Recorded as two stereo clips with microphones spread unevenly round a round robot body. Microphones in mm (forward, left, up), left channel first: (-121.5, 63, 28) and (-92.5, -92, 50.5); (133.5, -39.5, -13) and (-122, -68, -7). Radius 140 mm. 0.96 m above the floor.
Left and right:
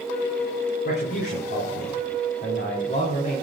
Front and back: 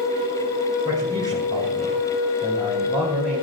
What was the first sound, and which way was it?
A man speaking, 110° left.